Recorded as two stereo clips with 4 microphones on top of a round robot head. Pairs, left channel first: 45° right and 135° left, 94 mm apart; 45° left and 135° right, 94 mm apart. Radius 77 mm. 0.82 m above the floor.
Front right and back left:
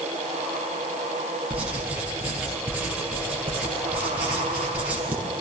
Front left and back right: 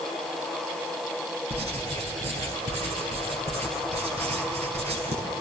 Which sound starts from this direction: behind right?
Writing, at 1.5 s.